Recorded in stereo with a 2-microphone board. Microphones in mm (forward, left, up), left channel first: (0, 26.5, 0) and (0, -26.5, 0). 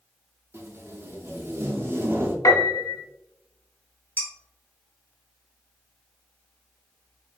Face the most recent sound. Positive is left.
turn(degrees=40)  # may be behind; listen again after turning